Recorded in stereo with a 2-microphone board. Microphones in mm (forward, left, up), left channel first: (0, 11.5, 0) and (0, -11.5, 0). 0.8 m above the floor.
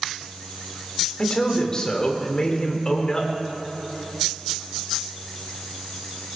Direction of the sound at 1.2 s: 35° left (ahead or behind).